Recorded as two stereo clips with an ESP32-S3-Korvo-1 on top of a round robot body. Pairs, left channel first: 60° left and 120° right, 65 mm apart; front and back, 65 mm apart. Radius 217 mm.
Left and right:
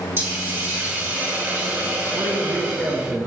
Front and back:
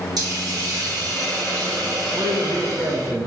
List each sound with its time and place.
0.2 s a hiss: 175° right, 3.5 m
2.1 s a man speaking: 175° left, 1.8 m